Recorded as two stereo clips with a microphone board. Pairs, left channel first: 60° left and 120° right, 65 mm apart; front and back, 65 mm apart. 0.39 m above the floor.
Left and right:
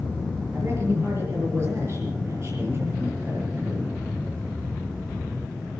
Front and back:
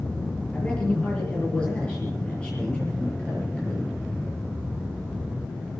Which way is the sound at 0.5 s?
75° right.